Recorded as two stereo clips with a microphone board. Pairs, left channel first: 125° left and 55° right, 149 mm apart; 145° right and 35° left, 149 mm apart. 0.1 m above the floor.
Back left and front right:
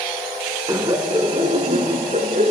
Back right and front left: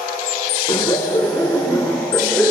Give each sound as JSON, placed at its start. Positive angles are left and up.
{"t": 0.7, "sound": "laughter", "azimuth_deg": -110, "distance_m": 1.4}